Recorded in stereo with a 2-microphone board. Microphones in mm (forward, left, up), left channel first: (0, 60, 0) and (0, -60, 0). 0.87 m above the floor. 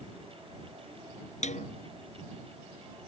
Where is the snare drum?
75° left (ahead or behind).